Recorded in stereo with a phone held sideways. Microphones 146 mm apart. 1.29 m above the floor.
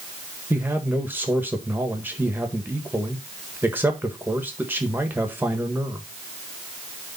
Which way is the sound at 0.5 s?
15° right (ahead or behind).